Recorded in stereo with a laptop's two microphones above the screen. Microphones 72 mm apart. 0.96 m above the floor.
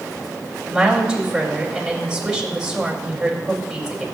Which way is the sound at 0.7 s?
10° right (ahead or behind).